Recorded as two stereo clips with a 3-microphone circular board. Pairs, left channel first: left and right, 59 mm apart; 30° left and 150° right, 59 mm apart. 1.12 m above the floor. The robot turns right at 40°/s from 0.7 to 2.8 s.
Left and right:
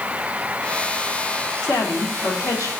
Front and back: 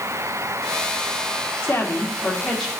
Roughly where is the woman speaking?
Left.